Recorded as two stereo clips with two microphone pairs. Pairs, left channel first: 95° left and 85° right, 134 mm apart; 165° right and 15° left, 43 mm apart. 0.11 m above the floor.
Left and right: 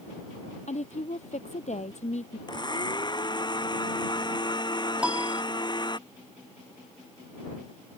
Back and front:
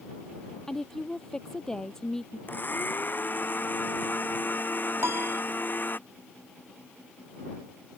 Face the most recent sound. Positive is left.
turn(degrees=0)